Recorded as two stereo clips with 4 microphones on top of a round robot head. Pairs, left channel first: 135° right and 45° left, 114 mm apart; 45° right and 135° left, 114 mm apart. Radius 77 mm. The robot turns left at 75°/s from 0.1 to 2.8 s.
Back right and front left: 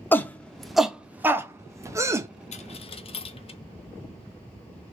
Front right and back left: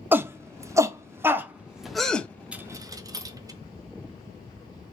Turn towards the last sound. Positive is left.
turn(degrees=-165)